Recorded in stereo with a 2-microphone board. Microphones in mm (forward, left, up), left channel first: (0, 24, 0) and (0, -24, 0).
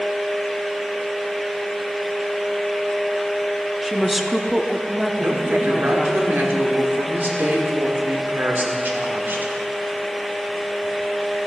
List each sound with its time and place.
3.8 s a woman speaking: centre (ahead or behind), 0.8 m
5.2 s a woman speaking: 50° right (ahead or behind), 1.7 m